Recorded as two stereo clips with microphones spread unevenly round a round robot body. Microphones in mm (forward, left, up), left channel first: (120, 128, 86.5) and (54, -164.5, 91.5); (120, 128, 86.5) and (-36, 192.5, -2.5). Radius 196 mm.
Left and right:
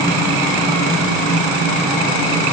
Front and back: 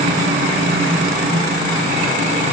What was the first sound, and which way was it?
Only background noise.